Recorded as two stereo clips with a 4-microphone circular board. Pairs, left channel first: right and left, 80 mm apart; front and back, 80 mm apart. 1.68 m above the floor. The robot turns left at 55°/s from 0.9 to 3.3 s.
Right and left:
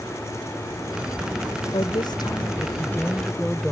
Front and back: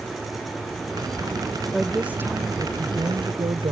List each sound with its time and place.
1.7 s a woman speaking: 90° right; by 3.7 s 175° right